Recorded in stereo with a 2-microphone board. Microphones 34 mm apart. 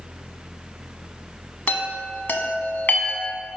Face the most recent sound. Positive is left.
turn(degrees=60)  # may be behind; listen again after turning